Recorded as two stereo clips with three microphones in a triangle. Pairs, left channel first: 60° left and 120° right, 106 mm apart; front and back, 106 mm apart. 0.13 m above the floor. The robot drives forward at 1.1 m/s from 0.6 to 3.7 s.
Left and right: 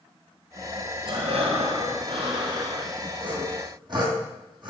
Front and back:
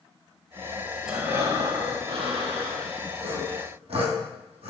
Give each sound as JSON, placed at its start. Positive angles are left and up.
{"t": 1.1, "sound": "breathing", "azimuth_deg": -95, "distance_m": 0.9}
{"t": 3.2, "sound": "sawing", "azimuth_deg": -155, "distance_m": 1.2}